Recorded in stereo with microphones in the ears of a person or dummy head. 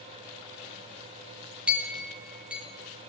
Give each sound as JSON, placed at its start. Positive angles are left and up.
{"t": 1.7, "sound": "a clink", "side_deg": -5, "distance_m": 1.9}